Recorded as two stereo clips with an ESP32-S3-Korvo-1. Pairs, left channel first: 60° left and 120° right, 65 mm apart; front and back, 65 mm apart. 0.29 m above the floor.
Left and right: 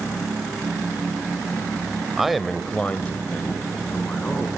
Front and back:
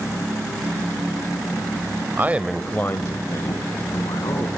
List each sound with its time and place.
2.2 s a man speaking: 160° left, 1.0 m; by 4.5 s 5° right, 3 m